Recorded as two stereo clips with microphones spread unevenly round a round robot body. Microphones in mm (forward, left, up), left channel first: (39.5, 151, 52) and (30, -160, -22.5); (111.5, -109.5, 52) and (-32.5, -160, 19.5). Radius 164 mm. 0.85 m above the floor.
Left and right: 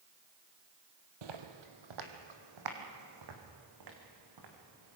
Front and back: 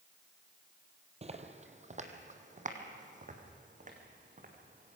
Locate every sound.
1.2 s footsteps: 110° right, 1.9 m; by 5.0 s 125° right, 5 m